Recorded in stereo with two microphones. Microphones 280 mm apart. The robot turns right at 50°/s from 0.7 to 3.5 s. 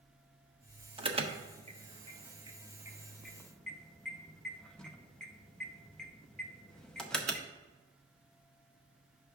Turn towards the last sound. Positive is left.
turn(degrees=5)  # may be behind; listen again after turning